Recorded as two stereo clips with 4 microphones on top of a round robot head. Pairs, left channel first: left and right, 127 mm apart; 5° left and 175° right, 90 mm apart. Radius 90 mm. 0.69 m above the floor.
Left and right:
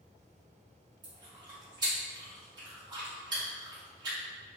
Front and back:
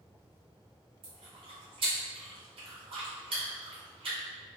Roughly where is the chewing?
Behind right.